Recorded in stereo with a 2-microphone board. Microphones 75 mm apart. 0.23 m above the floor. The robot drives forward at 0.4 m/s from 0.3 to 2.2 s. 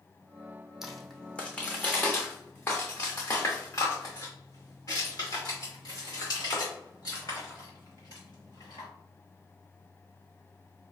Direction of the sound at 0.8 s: 5° right (ahead or behind).